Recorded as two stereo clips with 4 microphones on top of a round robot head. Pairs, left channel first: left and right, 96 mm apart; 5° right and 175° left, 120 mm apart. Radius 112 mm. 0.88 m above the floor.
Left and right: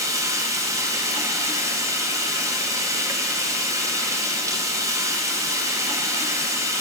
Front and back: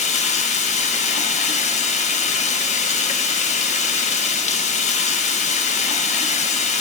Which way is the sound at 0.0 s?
30° right.